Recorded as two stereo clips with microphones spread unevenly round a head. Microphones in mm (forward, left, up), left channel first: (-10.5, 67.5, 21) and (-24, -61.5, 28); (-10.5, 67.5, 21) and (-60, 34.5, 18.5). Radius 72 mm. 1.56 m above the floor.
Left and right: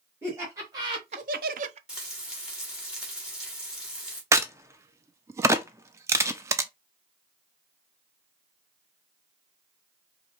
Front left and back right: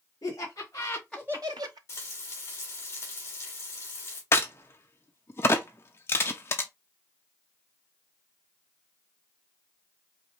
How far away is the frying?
About 1.5 m.